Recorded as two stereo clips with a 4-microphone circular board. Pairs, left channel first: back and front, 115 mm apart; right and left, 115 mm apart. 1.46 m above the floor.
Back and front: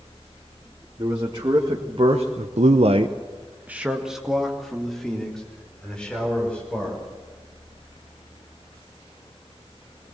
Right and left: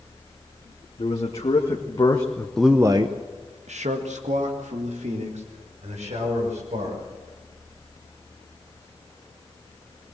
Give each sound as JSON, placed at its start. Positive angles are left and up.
{"t": 1.0, "sound": "a man speaking", "azimuth_deg": -60, "distance_m": 2.5}